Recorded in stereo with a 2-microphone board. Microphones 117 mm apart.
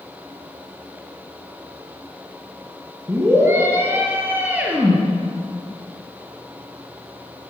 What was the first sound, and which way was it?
A scream, 20° right (ahead or behind).